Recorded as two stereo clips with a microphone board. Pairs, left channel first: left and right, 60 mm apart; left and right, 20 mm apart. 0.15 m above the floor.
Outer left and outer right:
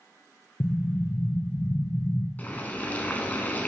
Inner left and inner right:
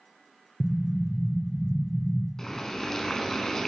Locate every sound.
0.6 s an explosion: 55° left (ahead or behind), 0.5 m
2.4 s boiling: 30° left (ahead or behind), 1.0 m